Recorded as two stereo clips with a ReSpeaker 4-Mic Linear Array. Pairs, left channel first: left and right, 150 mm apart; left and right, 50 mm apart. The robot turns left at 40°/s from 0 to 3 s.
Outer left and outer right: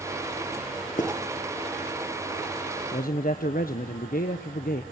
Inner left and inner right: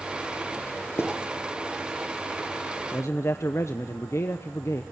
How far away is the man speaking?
About 1.0 m.